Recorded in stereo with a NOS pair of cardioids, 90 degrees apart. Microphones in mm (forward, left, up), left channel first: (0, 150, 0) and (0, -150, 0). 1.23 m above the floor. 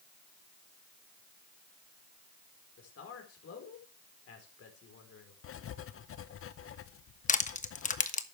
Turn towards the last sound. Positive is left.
turn(degrees=25)